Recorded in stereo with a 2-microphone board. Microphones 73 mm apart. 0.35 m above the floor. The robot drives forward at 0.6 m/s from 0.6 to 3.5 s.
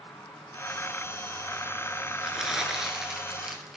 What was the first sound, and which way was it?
An insect, 60° left (ahead or behind).